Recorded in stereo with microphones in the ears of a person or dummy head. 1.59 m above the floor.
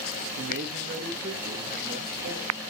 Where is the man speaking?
60° right (ahead or behind), 0.6 m; by 2.5 s 40° right (ahead or behind), 1.8 m.